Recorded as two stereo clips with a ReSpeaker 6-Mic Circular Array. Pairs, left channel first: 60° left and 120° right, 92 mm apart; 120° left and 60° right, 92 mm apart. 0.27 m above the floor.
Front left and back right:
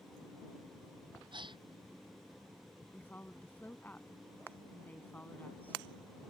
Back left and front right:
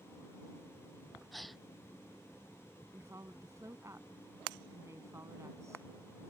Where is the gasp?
150° right.